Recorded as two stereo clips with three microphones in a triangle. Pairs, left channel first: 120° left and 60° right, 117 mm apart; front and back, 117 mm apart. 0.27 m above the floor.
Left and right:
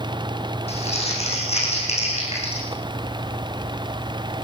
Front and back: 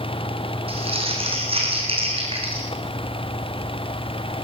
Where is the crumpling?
145° left, 7.5 m.